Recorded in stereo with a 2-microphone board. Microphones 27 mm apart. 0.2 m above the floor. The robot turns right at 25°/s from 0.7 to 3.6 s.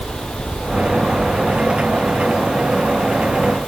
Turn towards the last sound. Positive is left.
No sound to turn to.